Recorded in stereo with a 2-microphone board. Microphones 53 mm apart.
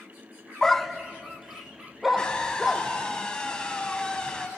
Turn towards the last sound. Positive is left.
turn(degrees=15)  # may be behind; listen again after turning